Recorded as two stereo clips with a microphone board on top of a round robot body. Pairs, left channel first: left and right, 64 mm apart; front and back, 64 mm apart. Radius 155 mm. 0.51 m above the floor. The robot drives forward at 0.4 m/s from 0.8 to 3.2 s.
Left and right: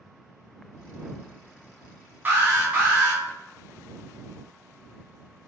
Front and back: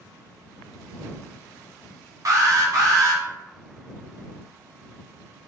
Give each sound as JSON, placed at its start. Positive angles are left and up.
{"t": 2.2, "sound": "an alarm", "azimuth_deg": -150, "distance_m": 1.3}